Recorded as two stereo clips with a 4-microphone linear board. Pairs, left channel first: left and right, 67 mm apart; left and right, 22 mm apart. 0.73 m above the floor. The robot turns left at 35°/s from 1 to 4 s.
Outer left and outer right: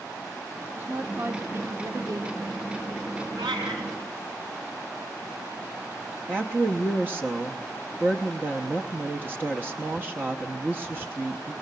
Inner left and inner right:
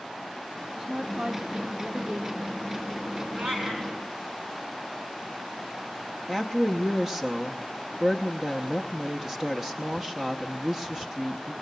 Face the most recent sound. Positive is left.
turn(degrees=-30)  # may be behind; listen again after turning